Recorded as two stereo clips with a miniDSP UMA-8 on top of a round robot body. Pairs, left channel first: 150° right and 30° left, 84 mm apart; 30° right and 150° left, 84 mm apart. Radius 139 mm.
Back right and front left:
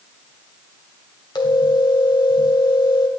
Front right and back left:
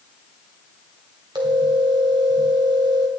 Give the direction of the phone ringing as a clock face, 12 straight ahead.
6 o'clock.